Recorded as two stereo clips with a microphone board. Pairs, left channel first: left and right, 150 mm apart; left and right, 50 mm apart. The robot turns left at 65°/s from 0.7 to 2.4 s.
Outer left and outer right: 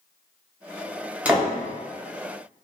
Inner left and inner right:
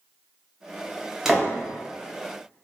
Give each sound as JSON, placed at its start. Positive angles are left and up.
{"t": 1.2, "sound": "a door slam", "side_deg": -10, "distance_m": 0.6}